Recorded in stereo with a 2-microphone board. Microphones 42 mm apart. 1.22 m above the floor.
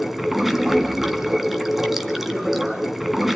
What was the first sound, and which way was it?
Running water, 5° right (ahead or behind).